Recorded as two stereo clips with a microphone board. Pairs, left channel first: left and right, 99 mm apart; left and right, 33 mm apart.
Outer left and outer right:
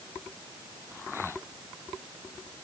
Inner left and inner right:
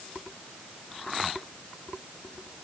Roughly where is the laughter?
No laughter in this recording.